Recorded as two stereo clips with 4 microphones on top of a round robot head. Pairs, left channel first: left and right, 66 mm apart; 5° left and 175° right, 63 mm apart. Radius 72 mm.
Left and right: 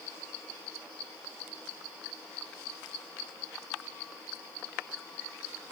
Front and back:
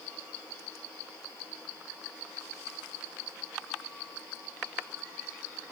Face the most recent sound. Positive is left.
No sound to turn to.